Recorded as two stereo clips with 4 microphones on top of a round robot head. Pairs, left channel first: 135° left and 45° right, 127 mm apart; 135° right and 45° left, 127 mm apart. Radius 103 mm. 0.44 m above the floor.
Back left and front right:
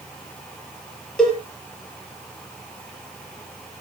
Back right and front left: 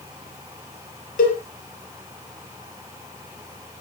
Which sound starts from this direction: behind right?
A cowbell, at 1.2 s.